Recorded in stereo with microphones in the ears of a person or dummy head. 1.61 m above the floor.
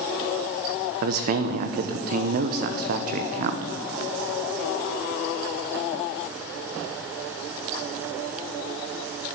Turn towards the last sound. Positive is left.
turn(degrees=-50)  # may be behind; listen again after turning